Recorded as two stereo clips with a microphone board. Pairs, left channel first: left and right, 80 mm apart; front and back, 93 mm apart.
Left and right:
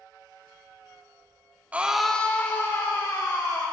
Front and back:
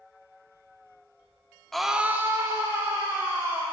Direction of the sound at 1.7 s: 75° right.